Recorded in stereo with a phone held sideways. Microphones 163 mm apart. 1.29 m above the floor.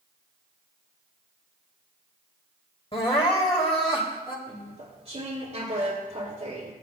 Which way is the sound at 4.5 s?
40° right (ahead or behind).